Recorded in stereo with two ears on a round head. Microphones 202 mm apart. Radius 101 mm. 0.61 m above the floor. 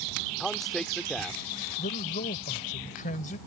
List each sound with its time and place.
0.4 s a man speaking: centre (ahead or behind)
1.8 s a man speaking: 35° left (ahead or behind)